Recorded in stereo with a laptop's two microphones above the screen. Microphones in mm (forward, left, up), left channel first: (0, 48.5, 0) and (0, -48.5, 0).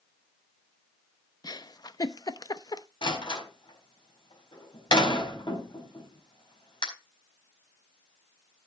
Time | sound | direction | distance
1.4 | a giggle | 40° left (ahead or behind) | 0.8 m
3.0 | a door slam | 55° left (ahead or behind) | 5 m